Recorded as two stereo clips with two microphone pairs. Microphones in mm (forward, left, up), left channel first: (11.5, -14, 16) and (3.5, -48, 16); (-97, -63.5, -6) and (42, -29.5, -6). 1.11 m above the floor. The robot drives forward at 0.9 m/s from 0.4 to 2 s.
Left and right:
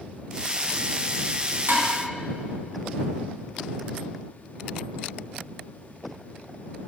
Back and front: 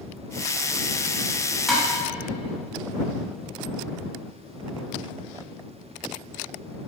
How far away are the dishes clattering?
About 1.3 m.